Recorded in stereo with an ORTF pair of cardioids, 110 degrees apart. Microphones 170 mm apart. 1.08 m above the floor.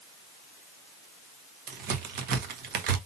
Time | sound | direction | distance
1.7 | a crack | 70° right | 1.4 m